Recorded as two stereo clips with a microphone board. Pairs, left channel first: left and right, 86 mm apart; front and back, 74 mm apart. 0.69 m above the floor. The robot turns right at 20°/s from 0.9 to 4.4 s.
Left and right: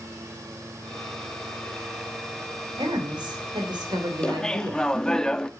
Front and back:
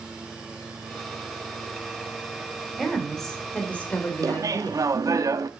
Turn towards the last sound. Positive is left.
turn(degrees=170)